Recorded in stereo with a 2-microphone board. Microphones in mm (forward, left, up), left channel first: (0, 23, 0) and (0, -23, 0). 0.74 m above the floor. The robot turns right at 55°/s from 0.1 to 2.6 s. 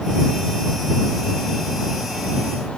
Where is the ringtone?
No ringtone in this recording.